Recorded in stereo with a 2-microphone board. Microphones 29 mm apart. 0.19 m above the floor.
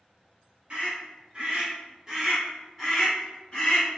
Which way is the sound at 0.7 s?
50° right (ahead or behind).